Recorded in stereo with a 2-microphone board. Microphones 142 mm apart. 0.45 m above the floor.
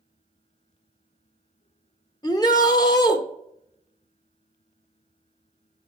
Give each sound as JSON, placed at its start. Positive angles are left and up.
{"t": 2.2, "sound": "a shout", "side_deg": 30, "distance_m": 0.9}